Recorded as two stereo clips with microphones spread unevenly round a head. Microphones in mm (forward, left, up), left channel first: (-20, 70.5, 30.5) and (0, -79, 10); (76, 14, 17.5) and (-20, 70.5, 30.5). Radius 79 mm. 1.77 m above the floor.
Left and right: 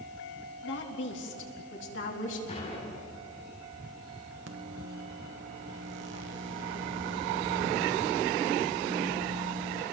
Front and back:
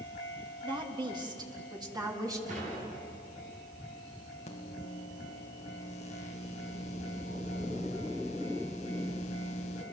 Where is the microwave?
80° right, 1.6 m.